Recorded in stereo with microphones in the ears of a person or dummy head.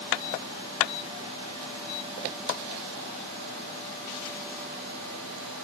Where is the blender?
No blender in this recording.